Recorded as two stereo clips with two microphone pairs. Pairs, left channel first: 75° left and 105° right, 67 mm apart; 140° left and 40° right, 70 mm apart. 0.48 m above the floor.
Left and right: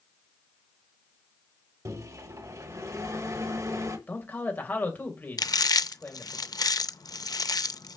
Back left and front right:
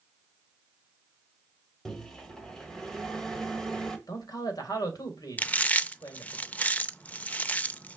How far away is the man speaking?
About 2.5 m.